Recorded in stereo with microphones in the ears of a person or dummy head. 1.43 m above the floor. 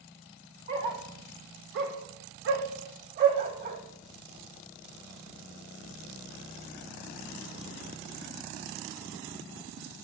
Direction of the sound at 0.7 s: 25° right (ahead or behind).